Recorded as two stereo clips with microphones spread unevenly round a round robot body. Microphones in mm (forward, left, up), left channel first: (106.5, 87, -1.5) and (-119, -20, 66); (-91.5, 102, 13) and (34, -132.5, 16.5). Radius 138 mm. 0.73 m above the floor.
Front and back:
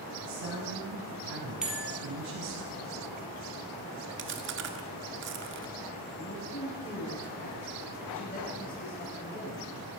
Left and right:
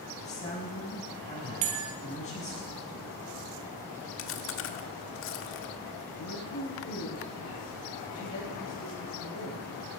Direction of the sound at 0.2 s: 175° right.